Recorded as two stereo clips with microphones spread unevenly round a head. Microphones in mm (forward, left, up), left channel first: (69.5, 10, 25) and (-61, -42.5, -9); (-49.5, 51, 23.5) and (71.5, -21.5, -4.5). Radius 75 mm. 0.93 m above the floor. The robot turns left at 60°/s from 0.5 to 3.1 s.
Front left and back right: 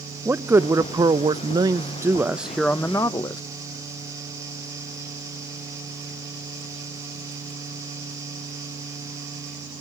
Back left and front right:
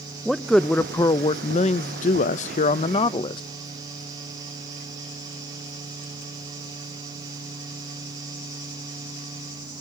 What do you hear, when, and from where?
0.2 s a man speaking: 110° right, 0.6 m; by 3.4 s 95° left, 0.6 m